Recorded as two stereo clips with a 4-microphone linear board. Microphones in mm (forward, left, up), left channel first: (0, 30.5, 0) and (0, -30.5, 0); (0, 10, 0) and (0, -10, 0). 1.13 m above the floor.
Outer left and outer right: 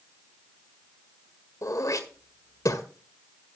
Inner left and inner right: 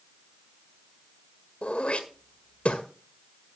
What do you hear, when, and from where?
1.6 s throat clearing: 65° left (ahead or behind), 1.6 m